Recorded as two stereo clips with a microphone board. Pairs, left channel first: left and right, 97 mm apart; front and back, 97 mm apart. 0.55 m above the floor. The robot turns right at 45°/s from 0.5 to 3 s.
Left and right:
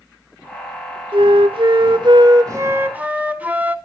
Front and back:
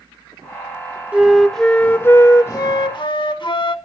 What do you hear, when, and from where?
1.1 s a flute: 105° right, 1.2 m; by 3.8 s 20° right, 1.2 m